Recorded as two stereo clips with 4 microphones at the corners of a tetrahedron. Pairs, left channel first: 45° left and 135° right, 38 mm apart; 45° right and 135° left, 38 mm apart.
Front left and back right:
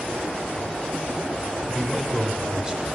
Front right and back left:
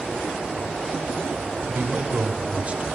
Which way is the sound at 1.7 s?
150° left.